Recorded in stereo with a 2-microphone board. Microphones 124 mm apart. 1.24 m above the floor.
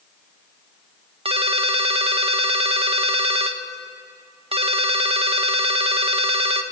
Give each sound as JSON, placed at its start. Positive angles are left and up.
{"t": 1.2, "sound": "a ringtone", "side_deg": -50, "distance_m": 0.7}